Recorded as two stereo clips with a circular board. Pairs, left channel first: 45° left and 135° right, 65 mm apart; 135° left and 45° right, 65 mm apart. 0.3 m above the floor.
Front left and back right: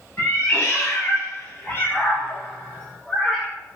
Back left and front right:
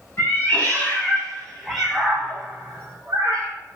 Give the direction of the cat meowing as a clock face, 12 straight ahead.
9 o'clock.